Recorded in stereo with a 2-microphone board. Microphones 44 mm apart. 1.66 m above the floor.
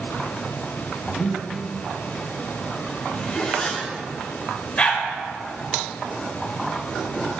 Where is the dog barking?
25° left (ahead or behind), 1.6 m.